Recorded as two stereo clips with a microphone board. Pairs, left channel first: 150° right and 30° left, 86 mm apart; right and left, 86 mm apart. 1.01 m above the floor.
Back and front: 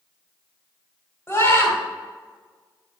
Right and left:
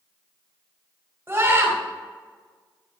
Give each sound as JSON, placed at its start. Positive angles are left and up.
{"t": 1.3, "sound": "a scream", "azimuth_deg": 150, "distance_m": 3.5}